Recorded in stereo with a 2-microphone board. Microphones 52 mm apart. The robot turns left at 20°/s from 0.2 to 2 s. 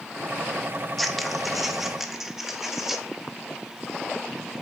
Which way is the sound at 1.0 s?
Centre (ahead or behind).